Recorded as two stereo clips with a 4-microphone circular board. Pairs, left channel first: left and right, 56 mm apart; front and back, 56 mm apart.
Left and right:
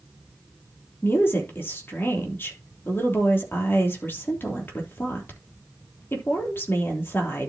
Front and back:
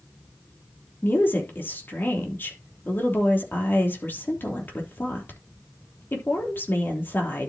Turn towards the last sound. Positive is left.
turn(degrees=50)